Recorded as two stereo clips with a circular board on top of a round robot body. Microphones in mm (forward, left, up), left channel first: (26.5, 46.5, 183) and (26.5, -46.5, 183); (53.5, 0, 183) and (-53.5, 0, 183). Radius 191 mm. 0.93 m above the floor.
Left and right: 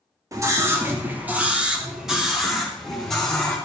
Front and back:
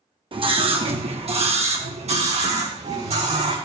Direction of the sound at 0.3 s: 145° right.